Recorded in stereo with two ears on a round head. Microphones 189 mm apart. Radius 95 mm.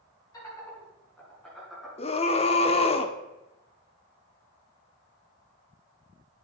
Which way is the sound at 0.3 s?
15° left (ahead or behind).